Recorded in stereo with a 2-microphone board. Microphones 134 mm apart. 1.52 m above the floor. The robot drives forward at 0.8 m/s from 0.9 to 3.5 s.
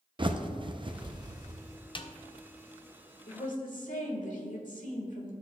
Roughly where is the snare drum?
Left.